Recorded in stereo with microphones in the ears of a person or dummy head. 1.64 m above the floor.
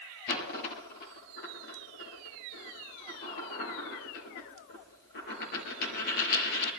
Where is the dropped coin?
55° left (ahead or behind), 5 m.